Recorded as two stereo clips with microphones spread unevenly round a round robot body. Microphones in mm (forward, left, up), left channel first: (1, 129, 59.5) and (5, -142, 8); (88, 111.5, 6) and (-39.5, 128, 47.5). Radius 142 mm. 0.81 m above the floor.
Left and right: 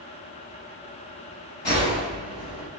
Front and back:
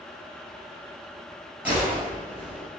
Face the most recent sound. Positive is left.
turn(degrees=100)